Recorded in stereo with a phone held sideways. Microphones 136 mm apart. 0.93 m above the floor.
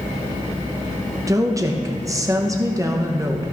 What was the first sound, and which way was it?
A woman speaking, 25° right (ahead or behind).